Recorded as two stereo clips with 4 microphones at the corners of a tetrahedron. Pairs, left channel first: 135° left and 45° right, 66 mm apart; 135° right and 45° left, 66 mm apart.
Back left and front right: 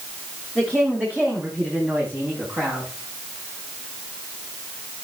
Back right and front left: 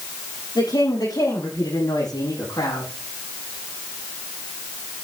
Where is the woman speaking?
115° right, 9.5 m; by 2.9 s 110° right, 8 m.